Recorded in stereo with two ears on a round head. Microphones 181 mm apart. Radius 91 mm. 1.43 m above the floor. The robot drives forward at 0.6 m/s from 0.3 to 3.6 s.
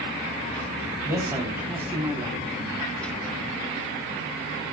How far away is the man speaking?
About 3 m.